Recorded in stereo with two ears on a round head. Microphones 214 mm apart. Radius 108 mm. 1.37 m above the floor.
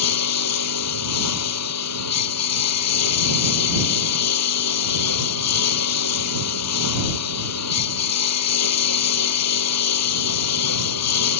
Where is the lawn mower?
80° left.